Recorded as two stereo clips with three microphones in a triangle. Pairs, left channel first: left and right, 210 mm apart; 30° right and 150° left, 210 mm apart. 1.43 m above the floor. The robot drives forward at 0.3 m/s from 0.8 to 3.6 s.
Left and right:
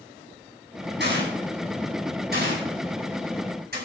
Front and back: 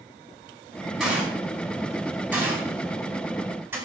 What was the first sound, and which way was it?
A gunshot, 120° right.